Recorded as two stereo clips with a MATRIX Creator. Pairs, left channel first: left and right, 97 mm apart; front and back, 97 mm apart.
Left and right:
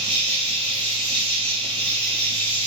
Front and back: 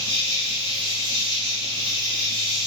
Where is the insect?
15° left, 1.8 m.